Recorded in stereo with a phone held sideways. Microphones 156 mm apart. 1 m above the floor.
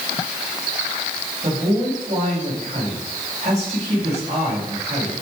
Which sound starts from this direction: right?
A man speaking, at 1.4 s.